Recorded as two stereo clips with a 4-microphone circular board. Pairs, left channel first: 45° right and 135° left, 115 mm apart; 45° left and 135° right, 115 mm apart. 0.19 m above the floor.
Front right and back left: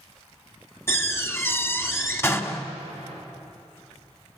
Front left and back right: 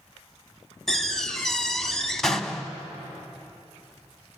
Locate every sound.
0.9 s a door slam: 30° right, 1.2 m